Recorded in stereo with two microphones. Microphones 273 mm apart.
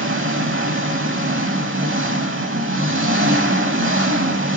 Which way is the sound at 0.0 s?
50° right (ahead or behind).